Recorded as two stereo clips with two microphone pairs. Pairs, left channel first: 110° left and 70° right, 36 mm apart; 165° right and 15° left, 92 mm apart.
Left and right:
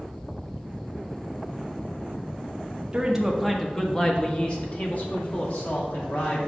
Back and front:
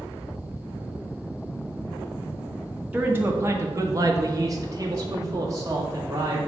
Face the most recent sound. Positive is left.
turn(degrees=70)